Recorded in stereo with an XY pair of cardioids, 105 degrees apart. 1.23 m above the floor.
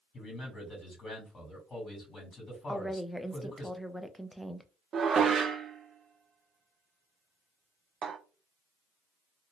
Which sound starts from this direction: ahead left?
A man speaking, at 0.1 s.